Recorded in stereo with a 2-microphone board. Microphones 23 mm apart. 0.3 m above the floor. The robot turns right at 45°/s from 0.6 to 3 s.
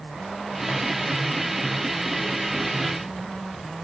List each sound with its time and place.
Only background noise.